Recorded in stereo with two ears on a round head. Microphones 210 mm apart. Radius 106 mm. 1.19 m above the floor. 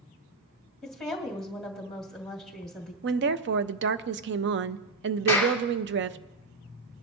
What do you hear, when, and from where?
0.8 s a woman speaking: centre (ahead or behind), 1.9 m
3.0 s a woman speaking: 45° right (ahead or behind), 0.5 m
5.3 s a clap: 10° left (ahead or behind), 2.5 m